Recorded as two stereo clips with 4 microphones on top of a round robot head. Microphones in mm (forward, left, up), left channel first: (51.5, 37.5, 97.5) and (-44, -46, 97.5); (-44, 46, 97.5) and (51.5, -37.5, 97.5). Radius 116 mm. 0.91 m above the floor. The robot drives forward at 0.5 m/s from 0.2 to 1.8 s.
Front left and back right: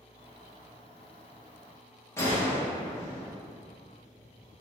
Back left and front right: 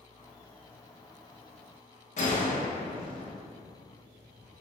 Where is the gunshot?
115° left, 1.0 m.